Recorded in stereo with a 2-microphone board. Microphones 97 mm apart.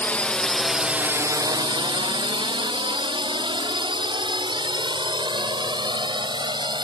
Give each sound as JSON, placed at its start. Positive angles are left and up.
{"t": 0.0, "sound": "a drone", "side_deg": 15}